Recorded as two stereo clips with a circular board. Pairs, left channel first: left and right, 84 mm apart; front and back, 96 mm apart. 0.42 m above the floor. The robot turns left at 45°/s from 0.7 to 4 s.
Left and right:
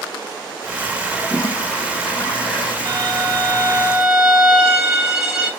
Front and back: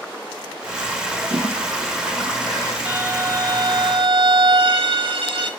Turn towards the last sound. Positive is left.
turn(degrees=-170)